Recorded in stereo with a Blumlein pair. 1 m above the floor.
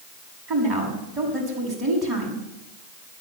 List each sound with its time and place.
0.5 s a woman speaking: 25° right, 7 m